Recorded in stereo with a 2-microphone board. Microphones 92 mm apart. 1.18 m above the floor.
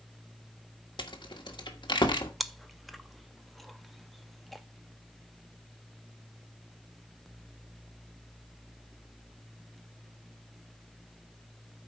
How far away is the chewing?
About 0.6 m.